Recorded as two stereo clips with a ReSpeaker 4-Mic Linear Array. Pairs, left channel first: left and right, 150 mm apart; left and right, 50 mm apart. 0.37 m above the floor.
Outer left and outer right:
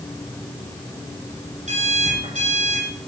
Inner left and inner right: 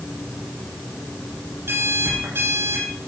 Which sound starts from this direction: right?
An alarm clock, at 1.7 s.